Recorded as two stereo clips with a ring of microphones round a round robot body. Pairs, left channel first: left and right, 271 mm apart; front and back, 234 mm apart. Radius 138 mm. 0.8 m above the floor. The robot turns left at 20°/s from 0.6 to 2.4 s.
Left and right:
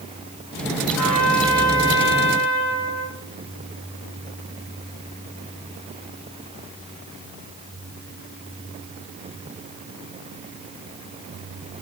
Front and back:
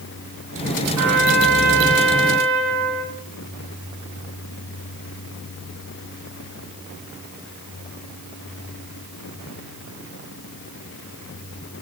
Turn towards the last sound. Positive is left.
turn(degrees=150)